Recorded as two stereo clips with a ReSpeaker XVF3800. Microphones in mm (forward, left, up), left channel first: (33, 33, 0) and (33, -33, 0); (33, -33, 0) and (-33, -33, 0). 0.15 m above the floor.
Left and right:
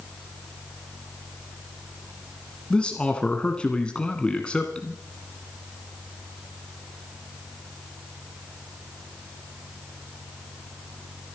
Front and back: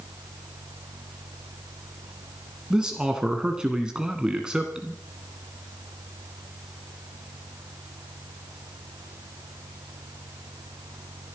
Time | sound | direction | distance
2.7 | a man speaking | 130° left | 1.5 m